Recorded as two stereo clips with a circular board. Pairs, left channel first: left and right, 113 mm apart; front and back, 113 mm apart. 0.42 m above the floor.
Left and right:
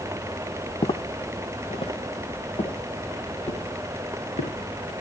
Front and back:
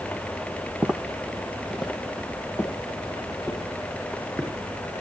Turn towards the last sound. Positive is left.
turn(degrees=85)